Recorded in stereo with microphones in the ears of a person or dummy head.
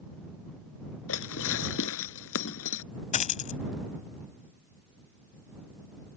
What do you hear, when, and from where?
1.1 s dishes clattering: 75° left (ahead or behind)
3.1 s a dropped coin: 45° left (ahead or behind)